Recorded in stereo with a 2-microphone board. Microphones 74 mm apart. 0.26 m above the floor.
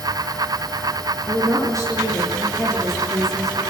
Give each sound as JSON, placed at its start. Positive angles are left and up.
{"t": 1.2, "sound": "a woman speaking", "side_deg": -45, "distance_m": 6.5}